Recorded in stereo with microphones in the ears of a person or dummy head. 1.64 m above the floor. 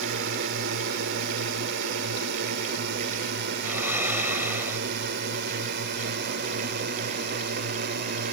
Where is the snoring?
5° right (ahead or behind).